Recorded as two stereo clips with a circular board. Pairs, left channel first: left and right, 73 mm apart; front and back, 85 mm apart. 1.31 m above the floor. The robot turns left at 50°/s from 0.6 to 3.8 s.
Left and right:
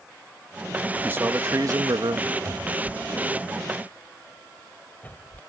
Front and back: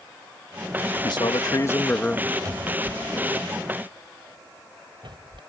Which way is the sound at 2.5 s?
135° right.